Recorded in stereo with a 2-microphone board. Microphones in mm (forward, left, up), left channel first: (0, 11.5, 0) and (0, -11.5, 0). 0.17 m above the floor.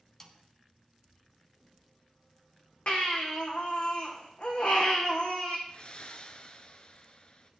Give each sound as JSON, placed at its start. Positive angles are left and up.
{"t": 0.2, "sound": "a snare drum", "side_deg": 15, "distance_m": 1.4}
{"t": 2.9, "sound": "a baby crying", "side_deg": 50, "distance_m": 3.0}
{"t": 5.7, "sound": "breathing", "side_deg": 50, "distance_m": 1.1}